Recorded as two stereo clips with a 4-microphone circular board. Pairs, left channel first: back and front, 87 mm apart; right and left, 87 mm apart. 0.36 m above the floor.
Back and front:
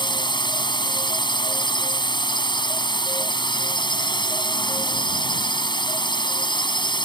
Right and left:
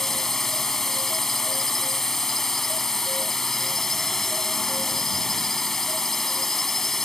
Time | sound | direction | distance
0.0 | a drone | 175° right | ?